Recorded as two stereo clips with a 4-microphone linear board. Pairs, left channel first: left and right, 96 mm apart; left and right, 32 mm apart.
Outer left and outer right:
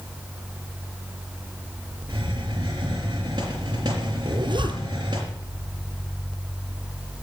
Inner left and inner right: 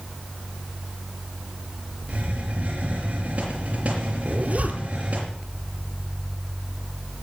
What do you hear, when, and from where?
2.1 s a hiss: 45° right (ahead or behind), 5 m
4.2 s a zipper: 55° right (ahead or behind), 1.7 m